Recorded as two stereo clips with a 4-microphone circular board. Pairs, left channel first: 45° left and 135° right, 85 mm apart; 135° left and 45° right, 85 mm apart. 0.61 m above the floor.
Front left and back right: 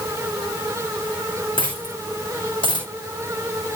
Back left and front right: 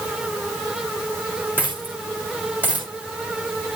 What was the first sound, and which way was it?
A dropped coin, 25° left.